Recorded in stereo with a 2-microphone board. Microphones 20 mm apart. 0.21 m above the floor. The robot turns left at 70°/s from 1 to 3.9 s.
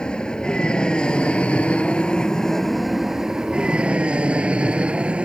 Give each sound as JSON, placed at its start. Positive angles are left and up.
{"t": 0.0, "sound": "an aircraft", "azimuth_deg": 135}